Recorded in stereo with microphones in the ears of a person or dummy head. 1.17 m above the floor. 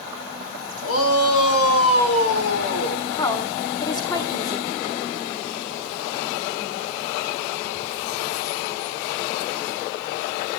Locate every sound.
0.8 s a shout: 80° left, 3.5 m; by 3.0 s 75° left (ahead or behind), 4.5 m
3.2 s a woman speaking: 20° left (ahead or behind), 2 m